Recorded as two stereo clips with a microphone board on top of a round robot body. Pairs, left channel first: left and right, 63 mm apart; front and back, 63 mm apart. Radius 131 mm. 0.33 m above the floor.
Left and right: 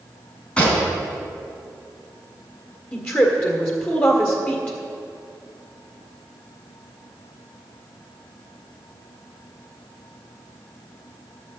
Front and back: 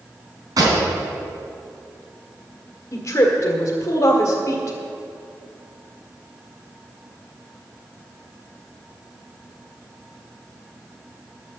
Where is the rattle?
I don't hear a rattle.